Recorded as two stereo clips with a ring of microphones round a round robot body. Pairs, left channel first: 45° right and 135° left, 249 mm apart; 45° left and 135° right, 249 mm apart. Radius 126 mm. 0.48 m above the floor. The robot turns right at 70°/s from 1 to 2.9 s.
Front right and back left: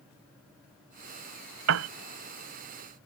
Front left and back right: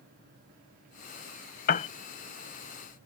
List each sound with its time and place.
1.7 s a piano: 100° left; by 1.9 s 115° left